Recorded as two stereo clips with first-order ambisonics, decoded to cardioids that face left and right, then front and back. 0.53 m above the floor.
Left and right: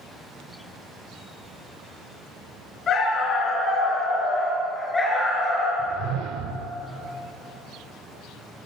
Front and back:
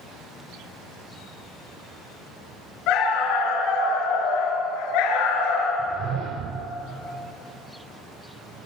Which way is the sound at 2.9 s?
30° left.